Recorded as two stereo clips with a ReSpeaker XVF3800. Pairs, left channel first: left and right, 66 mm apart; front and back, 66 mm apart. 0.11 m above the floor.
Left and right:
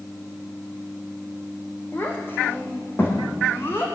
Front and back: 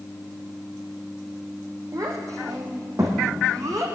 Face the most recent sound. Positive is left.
turn(degrees=145)